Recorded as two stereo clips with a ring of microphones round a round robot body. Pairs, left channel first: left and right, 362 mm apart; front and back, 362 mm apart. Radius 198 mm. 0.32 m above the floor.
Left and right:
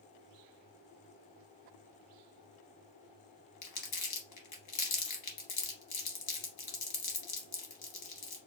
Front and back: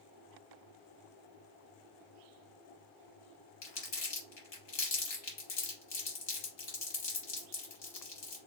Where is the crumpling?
50° left, 2.5 m.